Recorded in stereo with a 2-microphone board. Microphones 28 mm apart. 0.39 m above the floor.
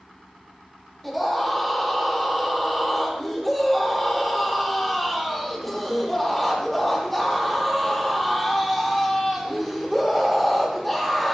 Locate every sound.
1.0 s a scream: 5° left (ahead or behind), 8.5 m